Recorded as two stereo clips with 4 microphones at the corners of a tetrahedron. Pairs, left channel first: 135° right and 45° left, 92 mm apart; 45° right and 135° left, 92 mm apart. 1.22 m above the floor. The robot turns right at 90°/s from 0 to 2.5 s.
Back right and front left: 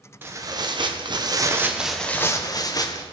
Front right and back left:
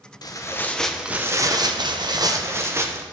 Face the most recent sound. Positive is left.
turn(degrees=-170)